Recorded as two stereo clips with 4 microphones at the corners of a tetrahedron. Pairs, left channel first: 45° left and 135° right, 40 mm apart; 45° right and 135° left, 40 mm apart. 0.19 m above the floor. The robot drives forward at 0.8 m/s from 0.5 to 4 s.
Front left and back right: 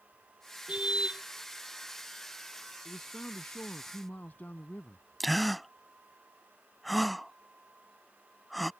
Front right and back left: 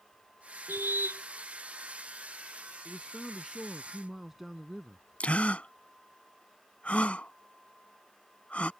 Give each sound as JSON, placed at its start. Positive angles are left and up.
{"t": 0.7, "sound": "a car horn", "azimuth_deg": 160}
{"t": 2.9, "sound": "a man speaking", "azimuth_deg": 35}
{"t": 5.2, "sound": "a gasp", "azimuth_deg": -45}